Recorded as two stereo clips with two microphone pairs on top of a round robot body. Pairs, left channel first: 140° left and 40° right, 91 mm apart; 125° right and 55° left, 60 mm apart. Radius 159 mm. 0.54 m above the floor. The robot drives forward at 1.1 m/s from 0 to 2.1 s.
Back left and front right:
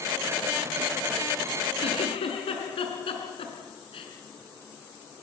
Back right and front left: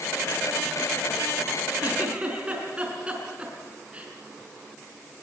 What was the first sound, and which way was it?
A giggle, 120° left.